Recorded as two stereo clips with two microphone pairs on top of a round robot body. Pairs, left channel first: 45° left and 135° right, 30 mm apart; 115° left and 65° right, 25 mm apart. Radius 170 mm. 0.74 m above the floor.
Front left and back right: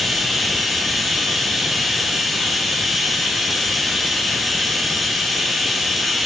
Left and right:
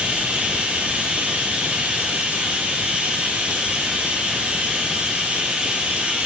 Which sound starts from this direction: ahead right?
Running water, at 0.0 s.